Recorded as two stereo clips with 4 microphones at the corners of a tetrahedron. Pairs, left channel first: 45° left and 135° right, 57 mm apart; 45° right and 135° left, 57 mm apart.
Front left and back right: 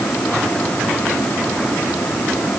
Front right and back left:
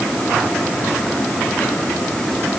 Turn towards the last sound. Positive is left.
No sound to turn to.